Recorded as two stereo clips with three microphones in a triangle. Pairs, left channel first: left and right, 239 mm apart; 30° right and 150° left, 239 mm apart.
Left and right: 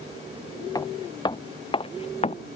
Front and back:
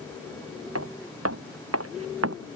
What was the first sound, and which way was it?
Footsteps, 165° left.